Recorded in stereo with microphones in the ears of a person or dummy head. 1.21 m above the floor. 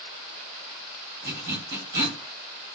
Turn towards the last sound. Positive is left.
turn(degrees=-35)  # may be behind; listen again after turning